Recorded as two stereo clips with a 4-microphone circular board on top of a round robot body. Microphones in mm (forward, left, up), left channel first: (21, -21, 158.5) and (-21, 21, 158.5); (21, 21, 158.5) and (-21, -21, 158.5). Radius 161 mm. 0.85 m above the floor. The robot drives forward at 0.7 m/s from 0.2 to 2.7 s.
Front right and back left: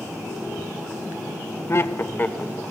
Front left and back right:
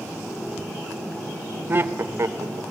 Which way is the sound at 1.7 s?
80° right.